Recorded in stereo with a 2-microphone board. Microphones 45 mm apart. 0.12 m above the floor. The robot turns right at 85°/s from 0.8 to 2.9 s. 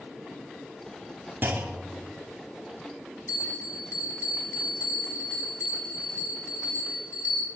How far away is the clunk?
About 1.0 m.